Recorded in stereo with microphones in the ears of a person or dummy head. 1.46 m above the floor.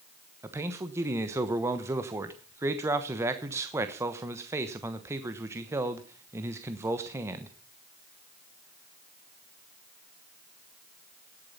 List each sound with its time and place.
0.4 s a man speaking: 15° right (ahead or behind), 1.1 m